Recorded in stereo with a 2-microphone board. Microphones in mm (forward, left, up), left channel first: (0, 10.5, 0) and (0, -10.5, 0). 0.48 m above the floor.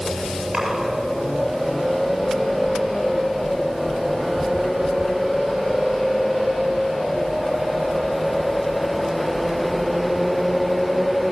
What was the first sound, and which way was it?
A splash, 40° right (ahead or behind).